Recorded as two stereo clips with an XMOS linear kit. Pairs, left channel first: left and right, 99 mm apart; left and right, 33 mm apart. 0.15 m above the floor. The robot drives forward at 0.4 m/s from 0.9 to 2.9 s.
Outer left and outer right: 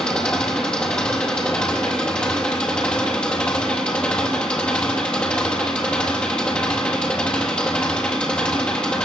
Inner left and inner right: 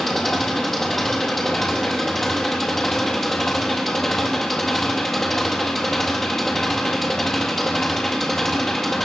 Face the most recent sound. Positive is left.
turn(degrees=10)  # may be behind; listen again after turning